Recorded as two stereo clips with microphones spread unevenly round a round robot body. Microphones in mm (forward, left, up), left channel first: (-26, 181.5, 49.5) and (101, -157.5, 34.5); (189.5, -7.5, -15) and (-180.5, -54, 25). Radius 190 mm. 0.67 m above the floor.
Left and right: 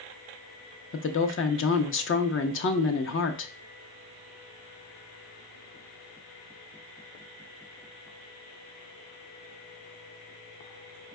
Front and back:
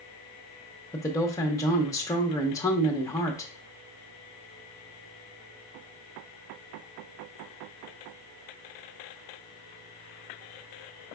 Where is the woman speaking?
75° left, 0.6 m.